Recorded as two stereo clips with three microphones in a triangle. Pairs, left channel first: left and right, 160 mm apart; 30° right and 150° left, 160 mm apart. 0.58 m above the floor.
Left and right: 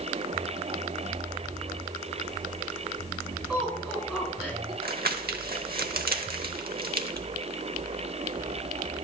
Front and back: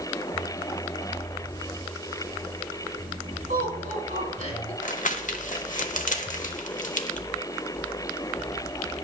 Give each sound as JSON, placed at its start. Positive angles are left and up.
{"t": 3.5, "sound": "laughter", "azimuth_deg": -170, "distance_m": 4.5}
{"t": 4.8, "sound": "crumpling", "azimuth_deg": -70, "distance_m": 0.8}